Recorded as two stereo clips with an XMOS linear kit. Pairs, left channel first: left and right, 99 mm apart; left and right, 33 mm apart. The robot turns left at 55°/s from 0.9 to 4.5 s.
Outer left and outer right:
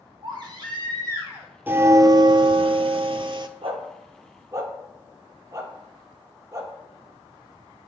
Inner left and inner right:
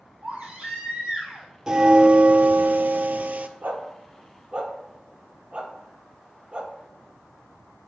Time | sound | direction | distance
0.2 | a baby crying | 130° right | 2.5 m
1.7 | a bell | 20° right | 0.5 m
3.6 | a dog barking | 70° right (ahead or behind) | 1.5 m